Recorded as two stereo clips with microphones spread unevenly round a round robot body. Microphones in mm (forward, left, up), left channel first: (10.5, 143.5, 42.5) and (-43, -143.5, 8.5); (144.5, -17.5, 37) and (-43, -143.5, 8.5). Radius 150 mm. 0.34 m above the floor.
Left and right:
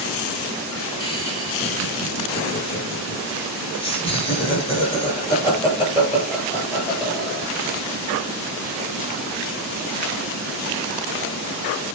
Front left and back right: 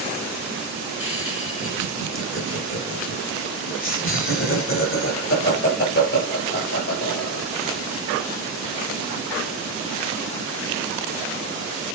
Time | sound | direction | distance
1.0 | laughter | 5° left | 4 m